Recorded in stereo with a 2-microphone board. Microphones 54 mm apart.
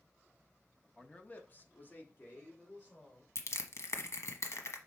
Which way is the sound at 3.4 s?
60° left (ahead or behind).